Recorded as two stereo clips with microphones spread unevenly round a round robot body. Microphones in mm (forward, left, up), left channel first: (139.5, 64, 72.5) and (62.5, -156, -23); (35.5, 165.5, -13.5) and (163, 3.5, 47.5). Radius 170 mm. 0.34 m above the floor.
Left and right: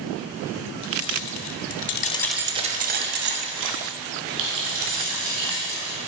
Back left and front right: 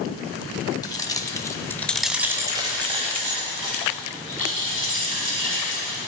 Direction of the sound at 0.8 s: 65° left.